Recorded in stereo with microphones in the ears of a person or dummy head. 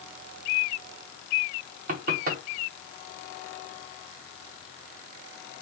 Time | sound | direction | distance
1.9 | knocking | 55° right (ahead or behind) | 1.1 m